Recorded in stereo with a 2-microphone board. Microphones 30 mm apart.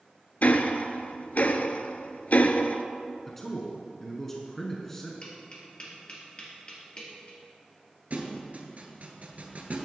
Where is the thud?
55° right (ahead or behind), 1.2 m.